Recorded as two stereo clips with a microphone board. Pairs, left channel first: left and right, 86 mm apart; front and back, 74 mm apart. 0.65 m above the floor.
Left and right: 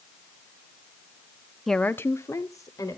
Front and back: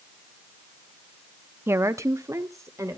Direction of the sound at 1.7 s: Straight behind.